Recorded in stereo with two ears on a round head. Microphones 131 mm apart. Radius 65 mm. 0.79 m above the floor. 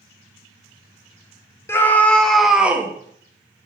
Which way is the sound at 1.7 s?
15° left (ahead or behind).